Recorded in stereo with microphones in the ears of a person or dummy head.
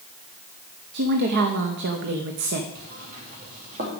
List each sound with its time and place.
0.9 s a woman speaking: 55° right (ahead or behind), 0.9 m
2.8 s knocking: 45° right (ahead or behind), 2.5 m